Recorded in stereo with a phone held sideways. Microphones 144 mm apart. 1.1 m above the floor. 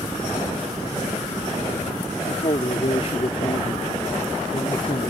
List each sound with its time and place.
2.2 s a man speaking: 50° left (ahead or behind)